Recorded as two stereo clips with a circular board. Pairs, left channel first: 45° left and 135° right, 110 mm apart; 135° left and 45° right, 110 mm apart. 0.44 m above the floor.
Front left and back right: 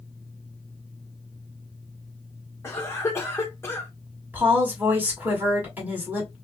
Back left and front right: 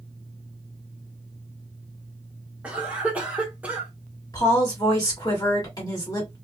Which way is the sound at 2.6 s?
15° left.